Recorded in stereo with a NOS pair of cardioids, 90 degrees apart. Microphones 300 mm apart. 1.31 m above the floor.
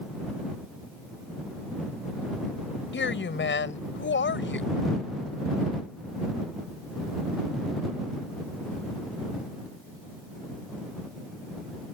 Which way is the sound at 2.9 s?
40° left.